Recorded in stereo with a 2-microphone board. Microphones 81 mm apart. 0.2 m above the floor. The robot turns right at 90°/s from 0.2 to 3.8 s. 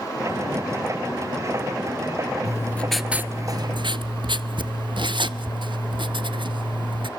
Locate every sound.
2.5 s writing: 135° left, 0.6 m; by 7.1 s 105° right, 0.6 m